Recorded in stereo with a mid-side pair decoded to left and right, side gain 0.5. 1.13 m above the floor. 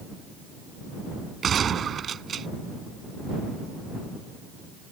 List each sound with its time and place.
1.4 s a gunshot: 45° right